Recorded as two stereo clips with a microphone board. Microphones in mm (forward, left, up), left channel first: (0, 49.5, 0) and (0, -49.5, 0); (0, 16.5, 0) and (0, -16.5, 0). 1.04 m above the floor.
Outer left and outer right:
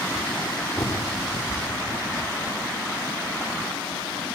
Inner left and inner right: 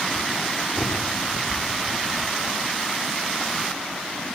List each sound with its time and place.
0.8 s a bird: 30° left (ahead or behind), 2 m